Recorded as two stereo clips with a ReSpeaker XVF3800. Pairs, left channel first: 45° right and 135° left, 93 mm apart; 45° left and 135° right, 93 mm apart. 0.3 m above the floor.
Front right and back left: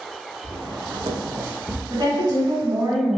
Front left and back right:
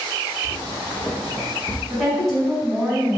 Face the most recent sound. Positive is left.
turn(degrees=135)